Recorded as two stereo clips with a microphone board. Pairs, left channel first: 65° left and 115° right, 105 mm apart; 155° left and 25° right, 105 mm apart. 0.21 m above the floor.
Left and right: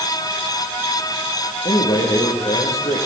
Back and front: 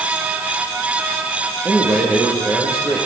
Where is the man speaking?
55° left, 7 m.